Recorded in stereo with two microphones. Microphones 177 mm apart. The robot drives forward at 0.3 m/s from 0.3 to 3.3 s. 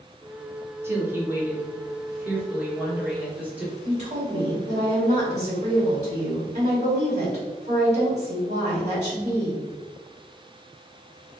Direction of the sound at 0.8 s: 15° right (ahead or behind).